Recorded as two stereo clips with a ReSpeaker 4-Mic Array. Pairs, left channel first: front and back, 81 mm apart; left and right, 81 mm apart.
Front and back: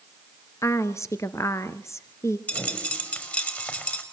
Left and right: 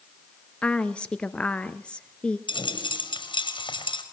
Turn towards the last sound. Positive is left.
turn(degrees=70)